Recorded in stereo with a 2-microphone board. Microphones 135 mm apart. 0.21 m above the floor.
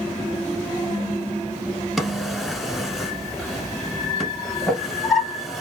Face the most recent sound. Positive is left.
turn(degrees=0)  # may be behind; listen again after turning